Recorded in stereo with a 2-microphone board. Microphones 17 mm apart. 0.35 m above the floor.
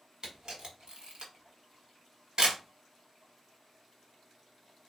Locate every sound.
0.2 s a camera shutter: 50° right (ahead or behind), 1.1 m